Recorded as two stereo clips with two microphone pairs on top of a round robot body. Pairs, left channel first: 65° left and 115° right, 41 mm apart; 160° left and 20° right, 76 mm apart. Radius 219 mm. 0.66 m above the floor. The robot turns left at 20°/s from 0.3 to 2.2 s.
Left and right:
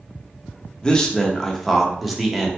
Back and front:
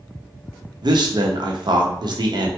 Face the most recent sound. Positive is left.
turn(degrees=-35)